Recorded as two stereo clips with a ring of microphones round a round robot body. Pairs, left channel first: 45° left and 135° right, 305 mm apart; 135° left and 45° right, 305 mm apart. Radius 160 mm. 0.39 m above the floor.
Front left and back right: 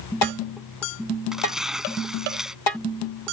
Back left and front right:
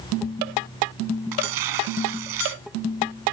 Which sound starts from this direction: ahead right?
Tearing paper, at 1.3 s.